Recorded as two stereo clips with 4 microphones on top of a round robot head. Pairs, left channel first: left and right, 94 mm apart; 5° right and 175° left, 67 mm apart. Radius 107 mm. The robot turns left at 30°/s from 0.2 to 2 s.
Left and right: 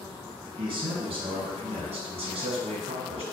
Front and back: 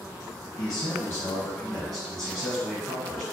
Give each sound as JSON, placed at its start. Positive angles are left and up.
{"t": 0.6, "sound": "a man speaking", "azimuth_deg": -45, "distance_m": 0.8}